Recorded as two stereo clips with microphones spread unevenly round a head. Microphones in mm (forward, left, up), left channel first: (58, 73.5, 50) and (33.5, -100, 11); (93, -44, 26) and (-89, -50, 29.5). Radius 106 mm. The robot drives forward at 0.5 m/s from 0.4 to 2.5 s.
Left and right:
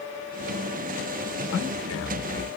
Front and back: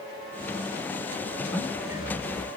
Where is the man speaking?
95° left, 1.1 m; by 2.5 s 115° left, 1.3 m.